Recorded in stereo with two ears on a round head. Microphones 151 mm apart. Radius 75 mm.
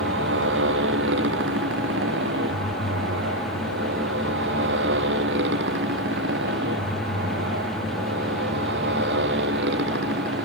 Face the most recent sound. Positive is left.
turn(degrees=-75)  # may be behind; listen again after turning